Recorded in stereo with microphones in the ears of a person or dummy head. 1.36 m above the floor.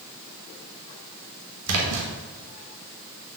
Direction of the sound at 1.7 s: 85° right.